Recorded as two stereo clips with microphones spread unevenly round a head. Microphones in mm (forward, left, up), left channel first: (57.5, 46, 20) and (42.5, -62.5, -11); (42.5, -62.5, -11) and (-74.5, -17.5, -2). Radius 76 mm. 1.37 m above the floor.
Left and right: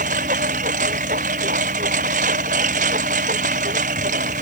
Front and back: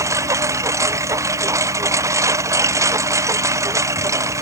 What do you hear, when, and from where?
0.0 s a lawn mower: 135° right